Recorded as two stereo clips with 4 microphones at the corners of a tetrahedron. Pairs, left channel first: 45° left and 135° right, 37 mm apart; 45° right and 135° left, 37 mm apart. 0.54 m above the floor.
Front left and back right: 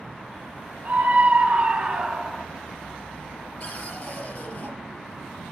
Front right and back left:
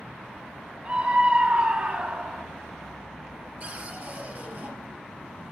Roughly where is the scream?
Behind.